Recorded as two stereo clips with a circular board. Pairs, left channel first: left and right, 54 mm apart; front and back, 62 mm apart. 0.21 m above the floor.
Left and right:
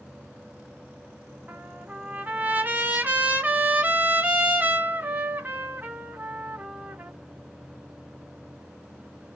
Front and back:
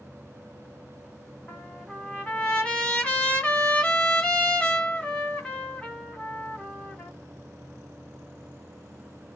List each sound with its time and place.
1.5 s a trumpet: 65° right, 1.7 m